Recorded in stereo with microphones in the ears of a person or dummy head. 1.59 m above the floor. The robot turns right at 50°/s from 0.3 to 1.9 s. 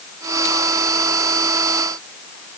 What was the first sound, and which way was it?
Only background noise.